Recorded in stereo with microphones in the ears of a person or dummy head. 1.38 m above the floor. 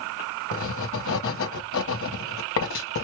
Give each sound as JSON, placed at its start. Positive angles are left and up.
{"t": 0.5, "sound": "writing", "side_deg": 70, "distance_m": 0.9}